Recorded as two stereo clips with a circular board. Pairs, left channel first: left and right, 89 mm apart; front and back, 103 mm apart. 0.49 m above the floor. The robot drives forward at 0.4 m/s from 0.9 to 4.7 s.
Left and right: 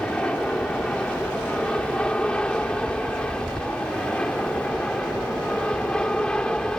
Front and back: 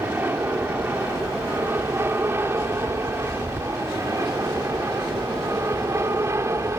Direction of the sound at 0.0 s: 155° left.